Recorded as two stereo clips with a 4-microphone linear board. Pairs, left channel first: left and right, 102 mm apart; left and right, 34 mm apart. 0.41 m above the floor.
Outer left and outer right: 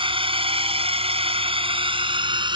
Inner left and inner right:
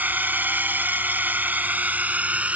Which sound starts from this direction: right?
A drone, at 0.0 s.